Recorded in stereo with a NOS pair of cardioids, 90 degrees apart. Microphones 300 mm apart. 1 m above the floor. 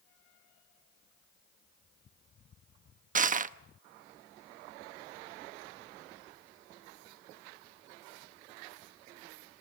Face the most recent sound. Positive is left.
turn(degrees=-30)